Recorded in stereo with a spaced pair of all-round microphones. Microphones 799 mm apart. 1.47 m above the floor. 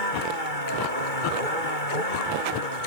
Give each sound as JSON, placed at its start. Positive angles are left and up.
{"t": 0.0, "sound": "a vehicle", "side_deg": 75}